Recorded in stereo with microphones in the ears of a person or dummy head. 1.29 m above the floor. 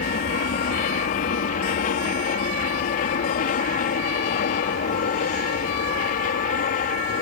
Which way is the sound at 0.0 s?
45° left (ahead or behind).